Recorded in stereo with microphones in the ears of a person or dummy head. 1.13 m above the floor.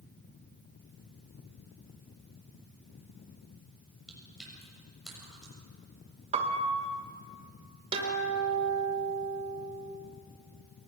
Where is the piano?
40° right (ahead or behind), 1.4 m.